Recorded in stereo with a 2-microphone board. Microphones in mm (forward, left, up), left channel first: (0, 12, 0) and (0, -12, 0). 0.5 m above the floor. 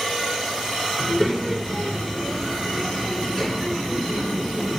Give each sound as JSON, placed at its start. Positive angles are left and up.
{"t": 1.0, "sound": "a child speaking", "side_deg": 30, "distance_m": 4.5}